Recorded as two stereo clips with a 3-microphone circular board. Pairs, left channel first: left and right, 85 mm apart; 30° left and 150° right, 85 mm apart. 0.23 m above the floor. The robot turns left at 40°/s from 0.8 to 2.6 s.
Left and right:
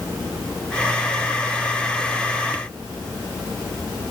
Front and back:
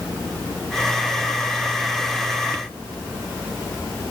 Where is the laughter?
No laughter in this recording.